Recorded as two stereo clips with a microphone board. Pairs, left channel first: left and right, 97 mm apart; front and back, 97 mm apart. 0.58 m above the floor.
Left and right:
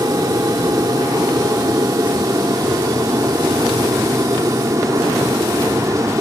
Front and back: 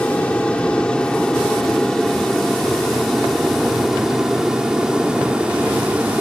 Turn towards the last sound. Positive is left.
turn(degrees=-110)